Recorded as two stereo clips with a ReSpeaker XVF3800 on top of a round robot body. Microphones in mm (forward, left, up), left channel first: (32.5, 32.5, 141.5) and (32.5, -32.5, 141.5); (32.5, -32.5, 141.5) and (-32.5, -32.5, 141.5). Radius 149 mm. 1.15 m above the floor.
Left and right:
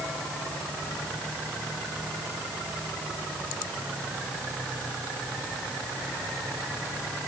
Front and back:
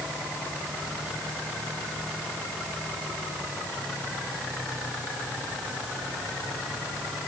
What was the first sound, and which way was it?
Only background noise.